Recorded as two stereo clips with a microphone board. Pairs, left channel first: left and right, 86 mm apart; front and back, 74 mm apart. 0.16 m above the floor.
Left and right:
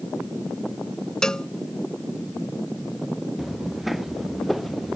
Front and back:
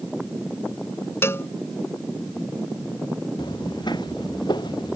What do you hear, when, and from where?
1.2 s a cowbell: 15° left
3.4 s footsteps: 5° right; by 5.0 s straight ahead